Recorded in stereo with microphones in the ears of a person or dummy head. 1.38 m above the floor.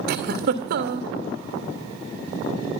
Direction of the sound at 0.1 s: 50° right (ahead or behind).